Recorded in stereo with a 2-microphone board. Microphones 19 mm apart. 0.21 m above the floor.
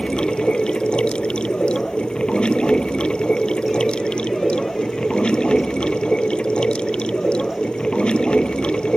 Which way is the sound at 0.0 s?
65° left (ahead or behind).